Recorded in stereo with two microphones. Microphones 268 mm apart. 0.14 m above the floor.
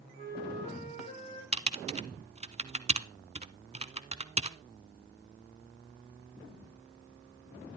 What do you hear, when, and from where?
0.2 s a flute: 25° left (ahead or behind), 4 m
1.5 s typing on a keyboard: 25° right (ahead or behind), 0.6 m